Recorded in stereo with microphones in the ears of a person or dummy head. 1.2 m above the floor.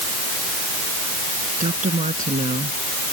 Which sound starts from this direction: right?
A woman speaking, at 1.6 s.